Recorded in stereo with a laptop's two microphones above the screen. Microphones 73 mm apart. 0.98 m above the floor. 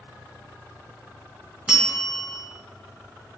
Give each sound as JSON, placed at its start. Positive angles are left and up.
{"t": 1.7, "sound": "a bell", "side_deg": -10, "distance_m": 2.0}